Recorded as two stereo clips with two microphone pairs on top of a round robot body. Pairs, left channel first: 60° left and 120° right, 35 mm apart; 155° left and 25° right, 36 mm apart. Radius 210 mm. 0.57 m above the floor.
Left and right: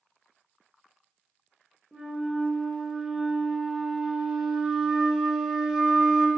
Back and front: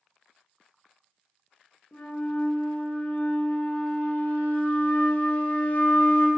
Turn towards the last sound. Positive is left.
turn(degrees=155)